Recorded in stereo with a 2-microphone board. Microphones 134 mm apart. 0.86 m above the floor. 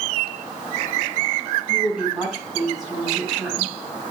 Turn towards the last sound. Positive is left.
turn(degrees=-5)  # may be behind; listen again after turning